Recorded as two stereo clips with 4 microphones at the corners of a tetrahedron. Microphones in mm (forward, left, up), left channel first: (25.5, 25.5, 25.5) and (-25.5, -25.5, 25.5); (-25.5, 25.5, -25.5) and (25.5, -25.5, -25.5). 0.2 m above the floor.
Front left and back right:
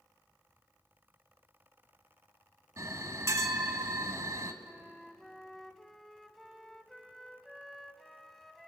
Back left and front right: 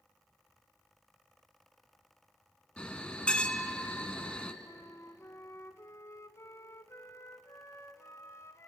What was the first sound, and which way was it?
A bell, 155° right.